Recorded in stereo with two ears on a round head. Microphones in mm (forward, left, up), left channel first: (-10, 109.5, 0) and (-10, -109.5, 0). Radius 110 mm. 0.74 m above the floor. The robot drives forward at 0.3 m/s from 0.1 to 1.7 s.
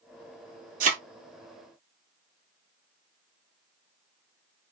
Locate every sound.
0.8 s a thud: 35° right (ahead or behind), 0.9 m